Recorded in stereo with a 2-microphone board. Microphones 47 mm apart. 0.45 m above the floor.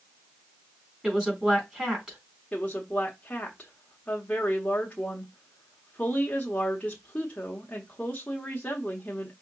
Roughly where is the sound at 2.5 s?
Left.